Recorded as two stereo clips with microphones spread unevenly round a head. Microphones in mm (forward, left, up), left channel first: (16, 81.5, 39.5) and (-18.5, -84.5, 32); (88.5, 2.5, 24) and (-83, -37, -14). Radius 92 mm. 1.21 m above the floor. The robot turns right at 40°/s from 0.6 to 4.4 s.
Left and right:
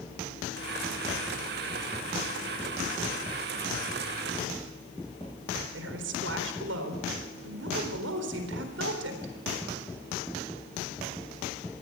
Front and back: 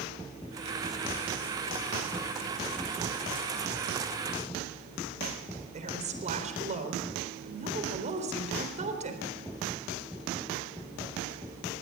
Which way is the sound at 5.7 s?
115° right.